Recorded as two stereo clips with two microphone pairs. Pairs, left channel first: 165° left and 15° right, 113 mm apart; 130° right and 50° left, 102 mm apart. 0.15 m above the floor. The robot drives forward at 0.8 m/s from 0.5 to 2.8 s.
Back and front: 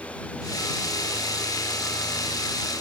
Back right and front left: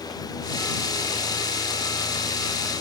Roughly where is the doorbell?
I don't hear a doorbell.